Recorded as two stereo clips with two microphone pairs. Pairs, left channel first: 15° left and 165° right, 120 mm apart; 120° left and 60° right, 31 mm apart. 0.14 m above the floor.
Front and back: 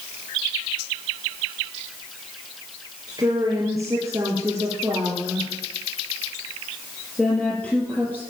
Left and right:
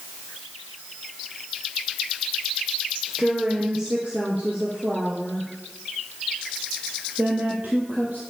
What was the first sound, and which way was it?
A woman speaking, 115° right.